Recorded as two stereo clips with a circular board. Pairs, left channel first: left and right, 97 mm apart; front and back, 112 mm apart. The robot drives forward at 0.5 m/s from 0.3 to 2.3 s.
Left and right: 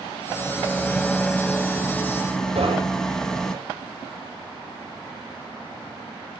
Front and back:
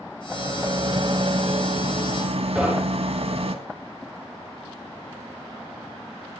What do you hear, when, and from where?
0.3 s a rattle: 165° left, 1.2 m; by 3.5 s 175° left, 2 m
2.5 s knocking: 100° right, 9 m